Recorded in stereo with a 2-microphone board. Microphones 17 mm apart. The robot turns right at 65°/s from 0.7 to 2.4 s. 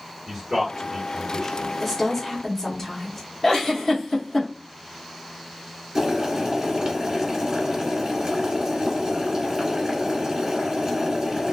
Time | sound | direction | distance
0.3 | a man speaking | 30° right (ahead or behind) | 1.8 m
1.8 | a woman speaking | 15° right | 0.9 m
3.4 | a giggle | 20° left (ahead or behind) | 0.9 m
6.0 | boiling | 35° right (ahead or behind) | 1.6 m